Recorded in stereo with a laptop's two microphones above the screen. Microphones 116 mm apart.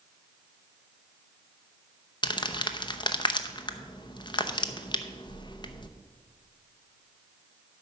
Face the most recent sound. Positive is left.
turn(degrees=40)  # may be behind; listen again after turning